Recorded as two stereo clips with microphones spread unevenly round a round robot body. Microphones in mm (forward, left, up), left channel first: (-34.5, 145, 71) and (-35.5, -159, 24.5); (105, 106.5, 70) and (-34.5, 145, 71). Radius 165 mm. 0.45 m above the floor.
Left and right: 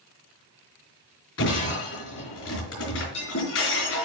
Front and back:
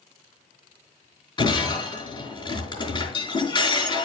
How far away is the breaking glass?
About 5 m.